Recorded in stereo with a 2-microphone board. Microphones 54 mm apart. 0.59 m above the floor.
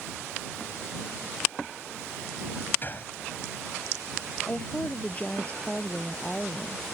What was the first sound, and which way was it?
A gunshot, 40° left (ahead or behind).